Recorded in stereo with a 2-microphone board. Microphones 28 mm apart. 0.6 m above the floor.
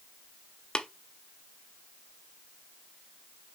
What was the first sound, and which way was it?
Tapping, 30° left (ahead or behind).